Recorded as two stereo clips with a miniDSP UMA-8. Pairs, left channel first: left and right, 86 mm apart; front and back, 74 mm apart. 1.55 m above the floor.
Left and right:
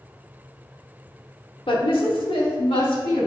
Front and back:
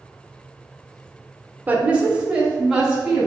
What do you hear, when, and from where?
1.7 s a woman speaking: 115° left, 0.9 m; by 3.3 s 95° left, 2.5 m